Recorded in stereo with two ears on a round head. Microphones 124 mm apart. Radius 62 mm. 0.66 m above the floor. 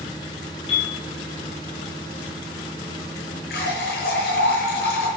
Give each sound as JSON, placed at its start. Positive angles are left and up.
{"t": 0.7, "sound": "a piano", "side_deg": 40, "distance_m": 6.5}
{"t": 3.5, "sound": "a running tap", "side_deg": 90, "distance_m": 8.0}